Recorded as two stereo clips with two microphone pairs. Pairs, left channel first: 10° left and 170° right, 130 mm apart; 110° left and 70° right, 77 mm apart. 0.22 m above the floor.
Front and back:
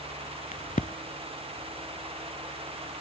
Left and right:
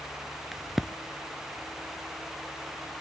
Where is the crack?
15° left, 0.6 m.